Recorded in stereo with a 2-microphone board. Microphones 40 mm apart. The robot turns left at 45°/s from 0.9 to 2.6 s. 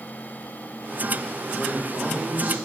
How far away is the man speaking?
About 1.3 m.